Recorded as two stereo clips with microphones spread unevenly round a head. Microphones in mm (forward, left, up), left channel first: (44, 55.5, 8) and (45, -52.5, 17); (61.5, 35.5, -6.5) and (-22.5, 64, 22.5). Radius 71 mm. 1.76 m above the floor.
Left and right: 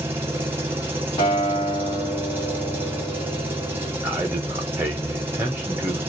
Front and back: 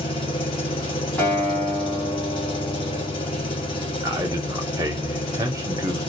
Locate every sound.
0.0 s an engine running: 50° right, 0.9 m
1.2 s a guitar: 55° left, 1.4 m
4.0 s a man speaking: 160° right, 0.6 m